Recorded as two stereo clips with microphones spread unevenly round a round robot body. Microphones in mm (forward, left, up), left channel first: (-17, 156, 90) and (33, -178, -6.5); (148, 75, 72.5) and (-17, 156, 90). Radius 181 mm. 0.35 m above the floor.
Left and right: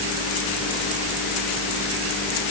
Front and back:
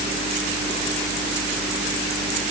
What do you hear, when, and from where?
Only background noise.